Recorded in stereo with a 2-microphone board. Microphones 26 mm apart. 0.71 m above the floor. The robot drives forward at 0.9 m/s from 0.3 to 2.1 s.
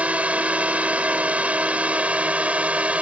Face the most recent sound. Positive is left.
turn(degrees=-65)  # may be behind; listen again after turning